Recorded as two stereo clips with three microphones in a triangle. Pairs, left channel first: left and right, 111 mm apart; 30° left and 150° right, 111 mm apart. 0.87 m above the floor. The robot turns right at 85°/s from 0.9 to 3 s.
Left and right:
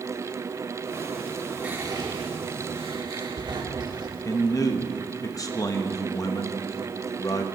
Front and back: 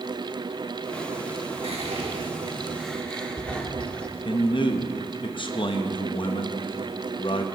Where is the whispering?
165° right, 1.7 m; by 4.1 s 50° right, 1.7 m.